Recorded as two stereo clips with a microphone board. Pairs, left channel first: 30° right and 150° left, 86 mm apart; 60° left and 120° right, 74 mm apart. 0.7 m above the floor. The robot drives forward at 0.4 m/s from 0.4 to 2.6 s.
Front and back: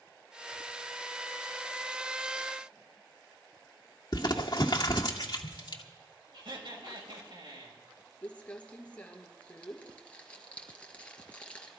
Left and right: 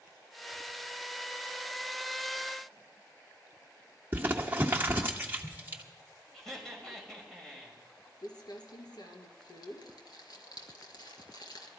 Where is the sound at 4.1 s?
60° right, 1.4 m.